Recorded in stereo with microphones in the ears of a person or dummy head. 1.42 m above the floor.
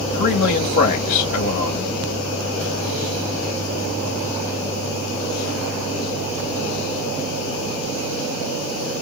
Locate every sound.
0.1 s a man speaking: 45° left (ahead or behind), 2.5 m